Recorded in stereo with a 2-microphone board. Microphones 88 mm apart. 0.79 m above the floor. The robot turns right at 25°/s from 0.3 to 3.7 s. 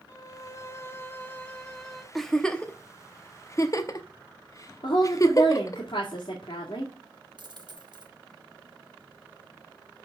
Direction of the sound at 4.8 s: 70° left (ahead or behind).